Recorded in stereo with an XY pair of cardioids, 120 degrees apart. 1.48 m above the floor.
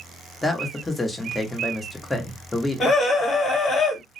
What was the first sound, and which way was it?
A man speaking, 10° left.